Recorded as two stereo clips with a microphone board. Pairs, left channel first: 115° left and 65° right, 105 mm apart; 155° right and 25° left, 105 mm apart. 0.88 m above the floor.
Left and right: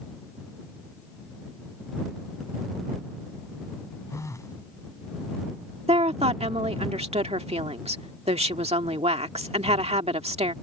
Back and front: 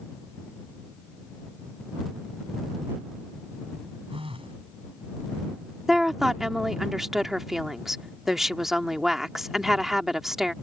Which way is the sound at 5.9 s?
65° right.